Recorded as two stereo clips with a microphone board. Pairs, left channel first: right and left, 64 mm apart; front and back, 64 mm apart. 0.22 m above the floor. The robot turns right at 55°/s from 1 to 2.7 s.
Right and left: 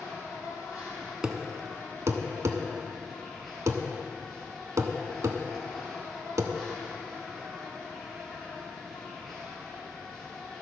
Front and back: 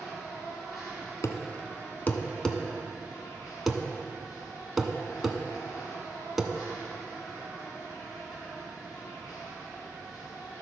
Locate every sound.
0.0 s an insect: 95° right, 3 m; by 10.6 s 5° right, 3 m
1.2 s a thud: 10° left, 0.6 m; by 6.5 s 90° left, 0.6 m